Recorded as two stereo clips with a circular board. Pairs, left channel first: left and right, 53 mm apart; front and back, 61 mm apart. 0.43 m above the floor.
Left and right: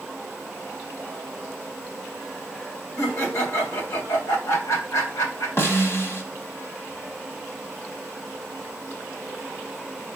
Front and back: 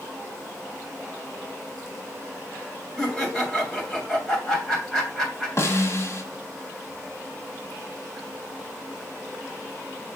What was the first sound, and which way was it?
Laughter, 85° left.